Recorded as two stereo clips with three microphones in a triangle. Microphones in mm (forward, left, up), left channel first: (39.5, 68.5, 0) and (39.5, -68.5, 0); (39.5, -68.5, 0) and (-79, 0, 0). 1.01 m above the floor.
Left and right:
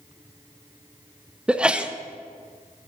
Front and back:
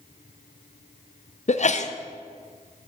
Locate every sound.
1.5 s a sneeze: 5° right, 0.5 m